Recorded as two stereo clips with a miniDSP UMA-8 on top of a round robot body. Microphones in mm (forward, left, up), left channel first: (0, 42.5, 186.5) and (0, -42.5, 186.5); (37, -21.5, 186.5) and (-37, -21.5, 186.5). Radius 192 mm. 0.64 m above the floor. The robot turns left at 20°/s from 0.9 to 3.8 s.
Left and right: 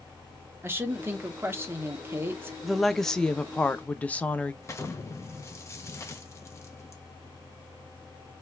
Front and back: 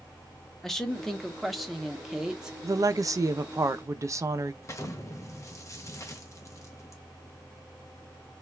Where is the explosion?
40° left, 0.8 m.